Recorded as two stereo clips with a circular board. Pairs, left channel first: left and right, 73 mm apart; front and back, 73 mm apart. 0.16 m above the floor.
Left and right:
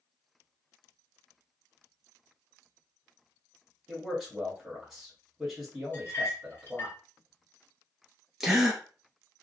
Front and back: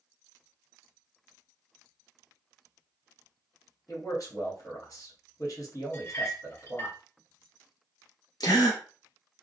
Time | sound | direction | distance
3.9 | a man speaking | 5° right | 1.7 m
5.9 | a clink | 40° left | 1.6 m
8.4 | a gasp | 5° right | 0.9 m